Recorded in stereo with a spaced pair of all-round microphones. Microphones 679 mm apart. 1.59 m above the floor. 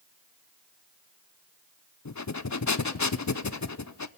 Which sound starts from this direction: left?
Breathing, at 2.0 s.